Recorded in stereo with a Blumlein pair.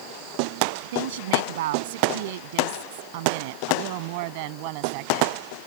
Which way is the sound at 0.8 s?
55° right.